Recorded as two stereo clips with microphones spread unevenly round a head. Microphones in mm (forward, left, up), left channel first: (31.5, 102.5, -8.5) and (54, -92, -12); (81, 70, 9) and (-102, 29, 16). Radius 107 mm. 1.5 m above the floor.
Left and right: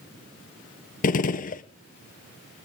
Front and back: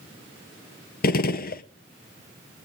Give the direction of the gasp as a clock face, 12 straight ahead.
No gasp in this recording.